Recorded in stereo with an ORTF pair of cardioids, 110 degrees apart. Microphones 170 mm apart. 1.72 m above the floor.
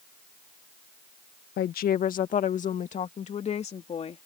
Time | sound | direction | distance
1.6 | a woman speaking | 65° left | ?